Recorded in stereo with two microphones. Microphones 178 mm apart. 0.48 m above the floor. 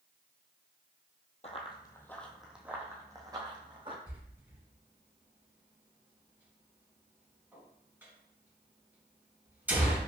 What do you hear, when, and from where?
1.4 s running footsteps: 40° left (ahead or behind), 0.8 m; by 4.0 s 30° right (ahead or behind), 1.7 m
4.1 s a door slam: 10° right (ahead or behind), 2.5 m